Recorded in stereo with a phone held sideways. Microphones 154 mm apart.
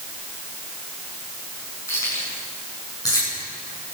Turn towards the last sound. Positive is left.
turn(degrees=25)  # may be behind; listen again after turning